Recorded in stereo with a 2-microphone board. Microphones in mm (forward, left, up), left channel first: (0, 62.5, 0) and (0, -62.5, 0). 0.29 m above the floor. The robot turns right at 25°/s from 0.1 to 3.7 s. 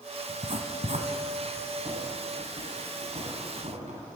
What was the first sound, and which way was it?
Writing, 55° right (ahead or behind).